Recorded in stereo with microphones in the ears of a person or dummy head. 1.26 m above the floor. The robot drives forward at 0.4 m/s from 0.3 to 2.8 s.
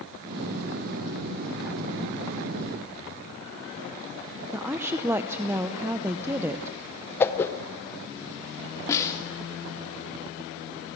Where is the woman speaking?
10° right (ahead or behind), 0.7 m.